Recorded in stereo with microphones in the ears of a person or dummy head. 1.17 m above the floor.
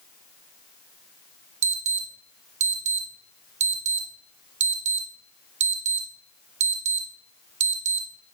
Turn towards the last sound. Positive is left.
turn(degrees=-35)  # may be behind; listen again after turning